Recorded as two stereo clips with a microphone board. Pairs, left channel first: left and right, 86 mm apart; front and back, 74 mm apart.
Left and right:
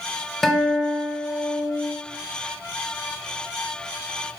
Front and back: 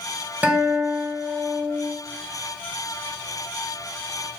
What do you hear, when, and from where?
0.4 s a guitar: 175° left, 1.1 m